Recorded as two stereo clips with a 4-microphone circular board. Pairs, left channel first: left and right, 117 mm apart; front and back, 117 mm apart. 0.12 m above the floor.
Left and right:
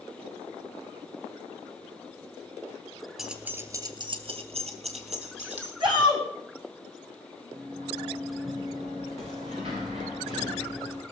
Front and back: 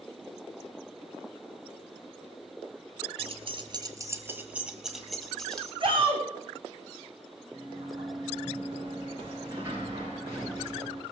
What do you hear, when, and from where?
3.2 s keys jangling: 175° right, 1.3 m; by 5.7 s 85° right, 2.5 m
5.8 s a shout: 135° right, 6 m
7.5 s a sliding door: 115° right, 6 m